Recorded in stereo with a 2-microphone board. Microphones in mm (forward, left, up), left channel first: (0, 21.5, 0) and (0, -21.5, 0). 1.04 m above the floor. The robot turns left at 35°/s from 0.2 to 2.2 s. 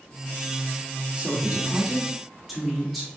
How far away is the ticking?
I don't hear ticking.